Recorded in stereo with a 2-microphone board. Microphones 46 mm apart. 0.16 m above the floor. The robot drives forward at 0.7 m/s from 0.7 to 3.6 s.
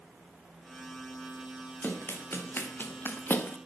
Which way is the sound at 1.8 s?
45° left (ahead or behind).